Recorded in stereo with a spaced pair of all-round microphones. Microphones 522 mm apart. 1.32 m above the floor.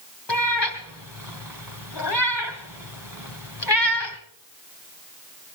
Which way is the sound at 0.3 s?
50° left (ahead or behind).